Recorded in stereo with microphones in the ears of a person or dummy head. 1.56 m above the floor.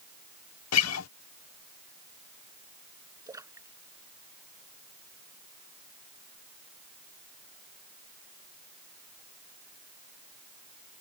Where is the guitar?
80° left.